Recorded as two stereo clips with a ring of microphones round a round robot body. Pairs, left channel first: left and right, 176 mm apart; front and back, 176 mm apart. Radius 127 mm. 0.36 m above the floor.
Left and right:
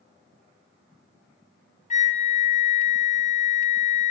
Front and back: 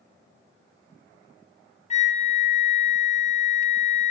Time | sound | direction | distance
1.9 | a flute | 45° left | 2.5 m